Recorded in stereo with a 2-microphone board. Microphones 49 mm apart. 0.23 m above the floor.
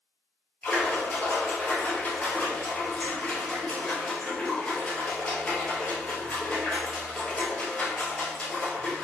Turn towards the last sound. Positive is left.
turn(degrees=25)  # may be behind; listen again after turning